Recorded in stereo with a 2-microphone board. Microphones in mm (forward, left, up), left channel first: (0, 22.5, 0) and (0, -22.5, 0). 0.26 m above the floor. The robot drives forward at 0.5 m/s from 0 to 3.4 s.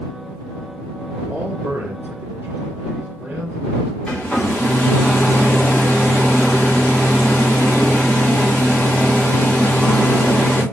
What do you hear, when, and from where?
1.3 s a man speaking: 50° right (ahead or behind), 3 m; by 4.0 s 40° right (ahead or behind), 3.5 m
4.1 s a hair dryer: 20° left (ahead or behind), 5 m